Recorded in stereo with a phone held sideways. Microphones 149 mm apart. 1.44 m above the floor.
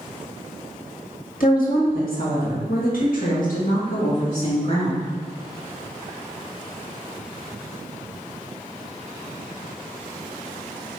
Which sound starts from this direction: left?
A woman speaking, at 1.4 s.